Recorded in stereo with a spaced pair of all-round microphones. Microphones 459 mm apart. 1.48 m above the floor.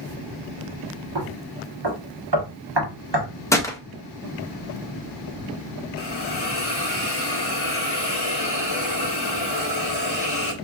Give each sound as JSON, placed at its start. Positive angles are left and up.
{"t": 1.1, "sound": "knocking", "side_deg": -55, "distance_m": 1.3}
{"t": 3.5, "sound": "a gunshot", "side_deg": 5, "distance_m": 0.7}
{"t": 6.0, "sound": "a hiss", "side_deg": 55, "distance_m": 0.6}